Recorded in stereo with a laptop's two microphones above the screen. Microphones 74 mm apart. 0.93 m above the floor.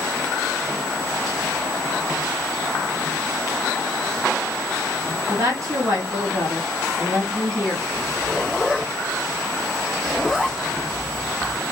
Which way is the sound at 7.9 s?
10° right (ahead or behind).